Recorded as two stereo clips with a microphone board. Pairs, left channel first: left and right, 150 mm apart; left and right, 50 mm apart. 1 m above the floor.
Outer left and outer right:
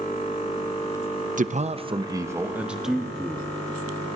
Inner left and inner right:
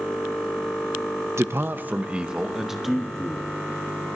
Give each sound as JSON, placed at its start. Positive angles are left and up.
{"t": 1.4, "sound": "a man speaking", "side_deg": -60, "distance_m": 0.6}